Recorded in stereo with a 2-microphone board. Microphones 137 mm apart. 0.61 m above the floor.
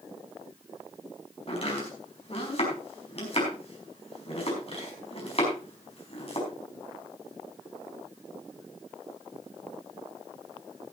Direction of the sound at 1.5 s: 45° left (ahead or behind).